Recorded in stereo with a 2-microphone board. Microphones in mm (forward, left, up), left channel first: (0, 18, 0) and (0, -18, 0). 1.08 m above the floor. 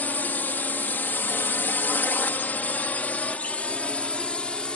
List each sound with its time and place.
0.0 s a drone: 55° left (ahead or behind); by 4.8 s 30° left (ahead or behind)